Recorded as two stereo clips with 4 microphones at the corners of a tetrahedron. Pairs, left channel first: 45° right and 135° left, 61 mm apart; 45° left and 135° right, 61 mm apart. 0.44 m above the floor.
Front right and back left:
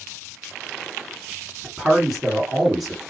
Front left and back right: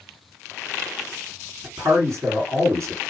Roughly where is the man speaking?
Behind right.